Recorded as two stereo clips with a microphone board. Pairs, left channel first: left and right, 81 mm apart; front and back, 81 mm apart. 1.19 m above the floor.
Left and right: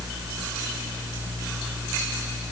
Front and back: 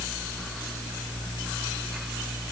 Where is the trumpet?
I don't hear a trumpet.